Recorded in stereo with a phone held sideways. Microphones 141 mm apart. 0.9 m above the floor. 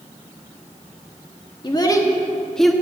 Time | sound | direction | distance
1.6 | a child speaking | 35° left (ahead or behind) | 1.0 m